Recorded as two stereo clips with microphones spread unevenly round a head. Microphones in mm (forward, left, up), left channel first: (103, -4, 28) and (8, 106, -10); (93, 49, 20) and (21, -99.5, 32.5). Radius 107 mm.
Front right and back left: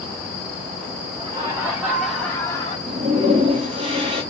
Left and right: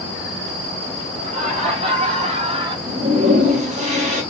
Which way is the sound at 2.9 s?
170° right.